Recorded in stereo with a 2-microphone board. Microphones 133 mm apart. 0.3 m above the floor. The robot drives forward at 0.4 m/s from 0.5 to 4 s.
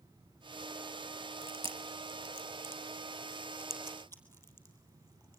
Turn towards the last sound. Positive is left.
turn(degrees=15)  # may be behind; listen again after turning